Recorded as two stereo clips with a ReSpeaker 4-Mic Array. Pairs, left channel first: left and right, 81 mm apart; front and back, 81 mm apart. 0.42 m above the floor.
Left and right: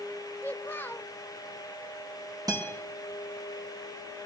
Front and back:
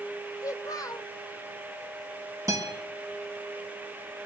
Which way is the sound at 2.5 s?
130° right.